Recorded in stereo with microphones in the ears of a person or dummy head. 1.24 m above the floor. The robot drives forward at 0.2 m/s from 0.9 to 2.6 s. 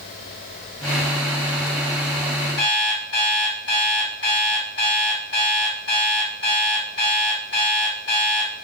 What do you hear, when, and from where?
2.6 s an alarm clock: 55° left (ahead or behind), 1.3 m